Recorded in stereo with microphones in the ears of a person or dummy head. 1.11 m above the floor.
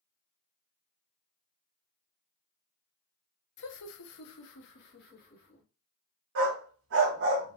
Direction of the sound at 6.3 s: 65° right (ahead or behind).